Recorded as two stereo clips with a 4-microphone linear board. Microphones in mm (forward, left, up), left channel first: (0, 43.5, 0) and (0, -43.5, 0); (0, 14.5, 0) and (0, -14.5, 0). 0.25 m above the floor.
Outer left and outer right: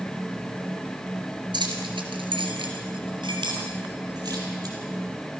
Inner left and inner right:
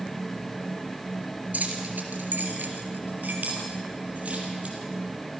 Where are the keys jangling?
60° right (ahead or behind), 3 m; by 4.8 s 45° right (ahead or behind), 5.5 m.